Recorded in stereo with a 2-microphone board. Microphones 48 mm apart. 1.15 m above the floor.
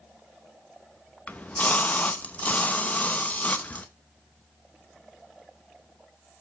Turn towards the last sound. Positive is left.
turn(degrees=30)  # may be behind; listen again after turning